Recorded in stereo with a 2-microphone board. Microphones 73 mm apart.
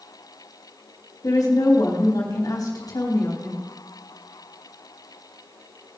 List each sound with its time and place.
1.2 s a woman speaking: 55° left (ahead or behind), 3.5 m